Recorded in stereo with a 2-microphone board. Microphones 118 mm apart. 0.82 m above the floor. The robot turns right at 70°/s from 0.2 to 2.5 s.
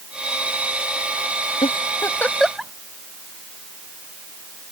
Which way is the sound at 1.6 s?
55° left (ahead or behind).